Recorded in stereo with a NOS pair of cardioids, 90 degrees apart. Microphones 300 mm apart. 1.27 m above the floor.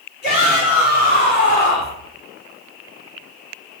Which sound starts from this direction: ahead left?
A shout, at 0.2 s.